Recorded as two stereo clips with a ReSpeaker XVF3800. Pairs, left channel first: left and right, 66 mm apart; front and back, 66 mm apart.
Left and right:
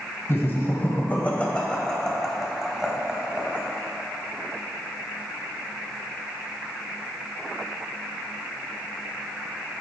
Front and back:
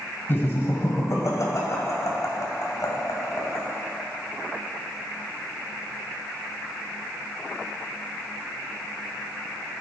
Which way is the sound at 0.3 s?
50° left.